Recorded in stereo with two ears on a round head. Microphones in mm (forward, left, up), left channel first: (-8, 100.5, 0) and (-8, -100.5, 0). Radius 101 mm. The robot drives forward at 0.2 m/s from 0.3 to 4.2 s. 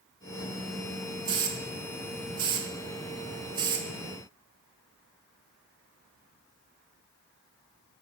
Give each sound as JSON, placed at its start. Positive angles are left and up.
{"t": 1.2, "sound": "a hiss", "side_deg": -20, "distance_m": 0.8}